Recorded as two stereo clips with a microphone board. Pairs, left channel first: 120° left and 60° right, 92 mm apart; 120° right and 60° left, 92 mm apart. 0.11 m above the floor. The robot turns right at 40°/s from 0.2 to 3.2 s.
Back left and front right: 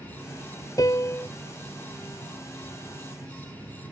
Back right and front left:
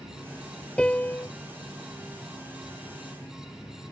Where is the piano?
160° left; by 1.3 s straight behind.